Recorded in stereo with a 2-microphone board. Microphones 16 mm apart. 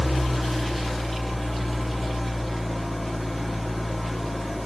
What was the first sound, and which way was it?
An engine running, centre (ahead or behind).